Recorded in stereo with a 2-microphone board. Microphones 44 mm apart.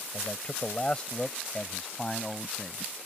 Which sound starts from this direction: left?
A man speaking, at 0.1 s.